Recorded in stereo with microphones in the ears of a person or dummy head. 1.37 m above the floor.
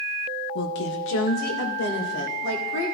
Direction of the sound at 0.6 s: 55° left (ahead or behind).